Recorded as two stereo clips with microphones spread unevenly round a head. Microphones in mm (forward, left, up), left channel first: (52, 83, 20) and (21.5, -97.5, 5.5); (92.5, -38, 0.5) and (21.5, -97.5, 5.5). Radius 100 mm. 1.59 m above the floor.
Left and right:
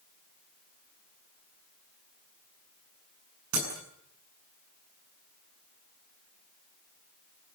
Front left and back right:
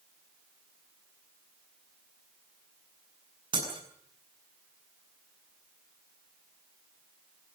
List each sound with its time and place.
3.5 s breaking glass: 110° right, 8 m